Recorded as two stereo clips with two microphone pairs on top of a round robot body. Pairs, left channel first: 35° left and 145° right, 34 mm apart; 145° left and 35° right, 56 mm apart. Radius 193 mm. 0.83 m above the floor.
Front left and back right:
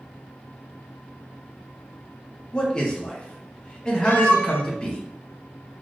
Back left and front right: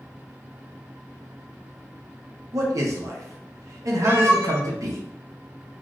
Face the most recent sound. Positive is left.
turn(degrees=20)